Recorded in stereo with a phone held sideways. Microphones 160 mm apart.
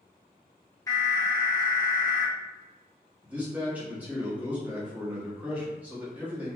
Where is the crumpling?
I don't hear crumpling.